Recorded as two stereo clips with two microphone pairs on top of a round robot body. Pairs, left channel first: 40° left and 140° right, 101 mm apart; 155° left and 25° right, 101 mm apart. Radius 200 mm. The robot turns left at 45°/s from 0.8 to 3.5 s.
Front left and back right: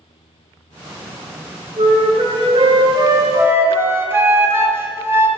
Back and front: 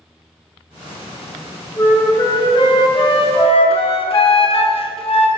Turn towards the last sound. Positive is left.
turn(degrees=155)